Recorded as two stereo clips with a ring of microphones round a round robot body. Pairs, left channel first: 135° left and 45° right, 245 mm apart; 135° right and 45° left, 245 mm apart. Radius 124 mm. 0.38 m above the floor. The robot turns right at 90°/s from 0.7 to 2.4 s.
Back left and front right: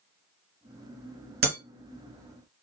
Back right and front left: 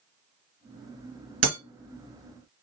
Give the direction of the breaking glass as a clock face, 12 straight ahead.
12 o'clock.